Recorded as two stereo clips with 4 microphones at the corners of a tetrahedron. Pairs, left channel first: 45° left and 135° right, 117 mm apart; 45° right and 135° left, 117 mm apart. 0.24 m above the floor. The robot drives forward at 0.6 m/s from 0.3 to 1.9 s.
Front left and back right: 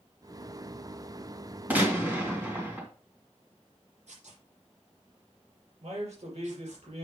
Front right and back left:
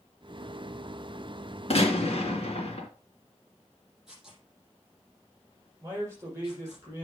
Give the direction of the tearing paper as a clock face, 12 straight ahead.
5 o'clock.